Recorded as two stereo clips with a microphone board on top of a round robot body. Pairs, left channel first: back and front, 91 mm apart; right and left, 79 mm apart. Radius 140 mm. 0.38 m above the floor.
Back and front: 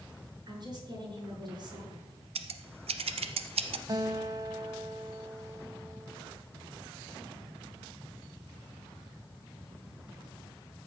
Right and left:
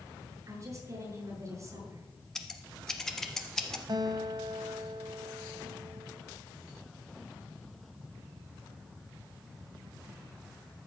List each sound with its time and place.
0.5 s a woman speaking: 40° left, 6.5 m
2.4 s scissors: 5° right, 0.9 m
3.9 s a guitar: 50° left, 0.6 m